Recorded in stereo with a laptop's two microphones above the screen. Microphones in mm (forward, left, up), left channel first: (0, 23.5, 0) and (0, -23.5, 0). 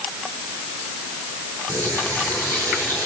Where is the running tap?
85° right, 9.5 m.